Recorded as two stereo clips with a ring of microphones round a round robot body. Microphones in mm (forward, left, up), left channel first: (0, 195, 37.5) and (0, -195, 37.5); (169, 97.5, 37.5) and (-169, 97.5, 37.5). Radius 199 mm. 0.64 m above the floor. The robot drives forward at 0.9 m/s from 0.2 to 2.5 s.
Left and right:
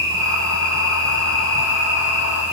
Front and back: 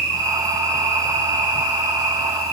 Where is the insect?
50° left, 9 m; by 2.5 s 60° left, 8 m.